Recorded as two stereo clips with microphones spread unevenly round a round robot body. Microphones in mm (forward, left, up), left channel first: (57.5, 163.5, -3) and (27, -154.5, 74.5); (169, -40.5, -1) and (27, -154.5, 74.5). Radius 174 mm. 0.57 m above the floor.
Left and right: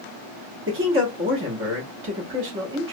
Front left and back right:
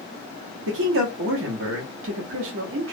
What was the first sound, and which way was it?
A man speaking, 155° right.